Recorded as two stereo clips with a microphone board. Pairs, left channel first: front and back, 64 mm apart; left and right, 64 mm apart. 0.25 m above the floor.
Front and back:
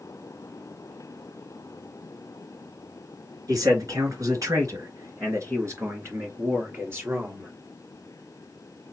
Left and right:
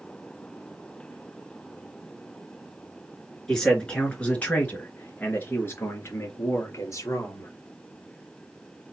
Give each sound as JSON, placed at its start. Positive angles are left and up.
{"t": 3.5, "sound": "a man speaking", "azimuth_deg": 170, "distance_m": 3.0}